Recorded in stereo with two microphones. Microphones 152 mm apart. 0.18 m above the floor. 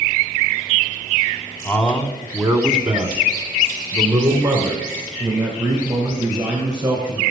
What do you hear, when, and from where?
1.6 s a man speaking: 10° left (ahead or behind), 1.0 m; by 7.2 s 25° right (ahead or behind), 3 m